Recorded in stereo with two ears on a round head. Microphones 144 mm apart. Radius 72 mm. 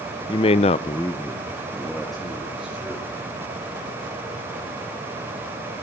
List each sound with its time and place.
0.3 s a man speaking: 30° left (ahead or behind), 0.7 m; by 3.1 s 5° right (ahead or behind), 3.5 m